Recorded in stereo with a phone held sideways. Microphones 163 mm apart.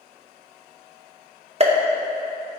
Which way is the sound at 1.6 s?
40° right (ahead or behind).